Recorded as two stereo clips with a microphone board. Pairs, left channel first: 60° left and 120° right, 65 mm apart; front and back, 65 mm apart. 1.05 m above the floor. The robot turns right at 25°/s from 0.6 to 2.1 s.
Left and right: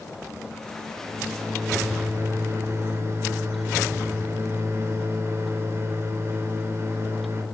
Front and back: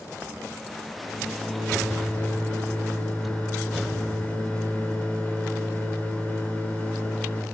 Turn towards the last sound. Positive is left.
turn(degrees=-65)